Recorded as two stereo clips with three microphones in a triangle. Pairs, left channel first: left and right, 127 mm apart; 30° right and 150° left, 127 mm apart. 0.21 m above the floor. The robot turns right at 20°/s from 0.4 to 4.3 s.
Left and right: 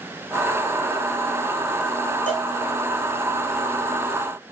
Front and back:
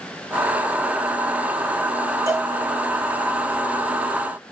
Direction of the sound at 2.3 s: 85° left.